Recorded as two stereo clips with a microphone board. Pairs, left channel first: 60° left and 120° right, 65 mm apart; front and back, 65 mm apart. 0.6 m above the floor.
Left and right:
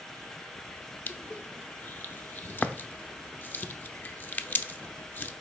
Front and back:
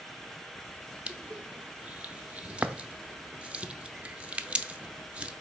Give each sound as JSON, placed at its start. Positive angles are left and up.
{"t": 1.1, "sound": "crushing", "azimuth_deg": 115, "distance_m": 0.5}